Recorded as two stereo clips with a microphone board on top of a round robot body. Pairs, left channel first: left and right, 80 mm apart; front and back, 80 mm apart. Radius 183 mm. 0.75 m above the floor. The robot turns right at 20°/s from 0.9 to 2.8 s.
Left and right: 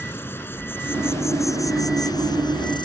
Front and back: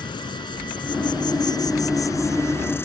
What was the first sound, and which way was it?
An insect, 25° left.